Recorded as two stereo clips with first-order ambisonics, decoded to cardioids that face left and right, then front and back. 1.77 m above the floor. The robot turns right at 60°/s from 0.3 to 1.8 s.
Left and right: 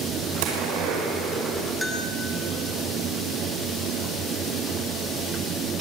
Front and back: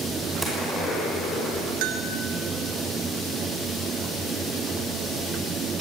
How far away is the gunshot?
About 6 m.